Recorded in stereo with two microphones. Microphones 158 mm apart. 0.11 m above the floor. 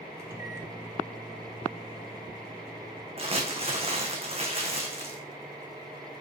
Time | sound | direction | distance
0.2 | a microwave | 15° right (ahead or behind) | 1.1 m
3.2 | crumpling | 40° right (ahead or behind) | 1.3 m